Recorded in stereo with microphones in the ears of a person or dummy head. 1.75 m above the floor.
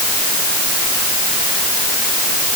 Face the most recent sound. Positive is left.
No sound to turn to.